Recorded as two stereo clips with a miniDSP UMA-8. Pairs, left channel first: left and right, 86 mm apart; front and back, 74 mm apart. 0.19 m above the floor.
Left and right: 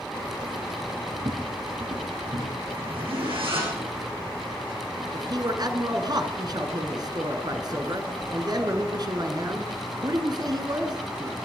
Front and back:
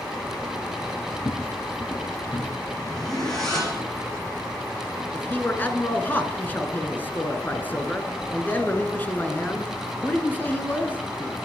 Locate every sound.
1.1 s footsteps: 40° right, 1.3 m; by 2.5 s 75° right, 3 m
2.8 s a zipper: 85° right, 8 m
5.1 s a man speaking: 60° right, 2.0 m